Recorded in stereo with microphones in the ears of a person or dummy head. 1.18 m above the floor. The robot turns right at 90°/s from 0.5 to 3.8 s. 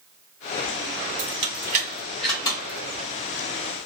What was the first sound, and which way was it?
Keys jangling, 75° right (ahead or behind).